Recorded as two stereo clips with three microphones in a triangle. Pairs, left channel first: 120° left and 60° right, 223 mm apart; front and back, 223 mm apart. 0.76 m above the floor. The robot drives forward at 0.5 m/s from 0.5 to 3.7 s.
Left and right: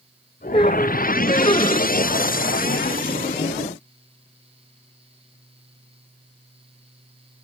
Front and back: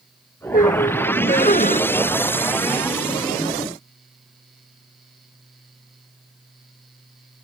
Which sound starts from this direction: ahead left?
A squeak, at 0.5 s.